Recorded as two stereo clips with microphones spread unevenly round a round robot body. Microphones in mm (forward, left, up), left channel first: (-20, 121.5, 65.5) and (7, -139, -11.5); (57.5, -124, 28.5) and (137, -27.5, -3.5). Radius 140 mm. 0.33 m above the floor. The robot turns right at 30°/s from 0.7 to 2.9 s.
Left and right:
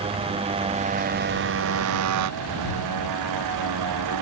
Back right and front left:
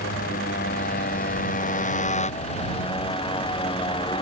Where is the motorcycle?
155° right; by 4.2 s 85° right.